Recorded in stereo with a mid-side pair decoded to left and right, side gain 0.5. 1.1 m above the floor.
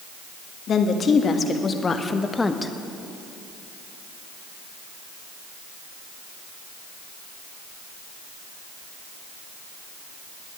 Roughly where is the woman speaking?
Ahead left.